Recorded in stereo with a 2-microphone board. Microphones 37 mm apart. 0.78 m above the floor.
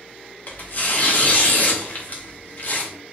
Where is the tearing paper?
50° left (ahead or behind), 0.7 m.